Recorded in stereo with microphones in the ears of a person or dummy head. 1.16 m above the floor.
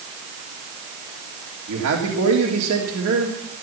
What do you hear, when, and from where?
1.7 s a man speaking: 80° right, 3 m